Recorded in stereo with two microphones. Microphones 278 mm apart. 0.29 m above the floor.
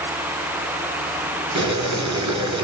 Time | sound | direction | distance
1.6 | boiling | 75° right (ahead or behind) | 1.1 m